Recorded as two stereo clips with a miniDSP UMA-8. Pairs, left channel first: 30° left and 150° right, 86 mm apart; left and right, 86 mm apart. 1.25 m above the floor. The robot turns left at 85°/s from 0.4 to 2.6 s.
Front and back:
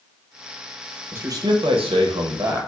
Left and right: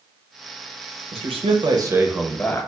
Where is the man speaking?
80° right, 0.7 m; by 2.7 s 150° left, 0.7 m.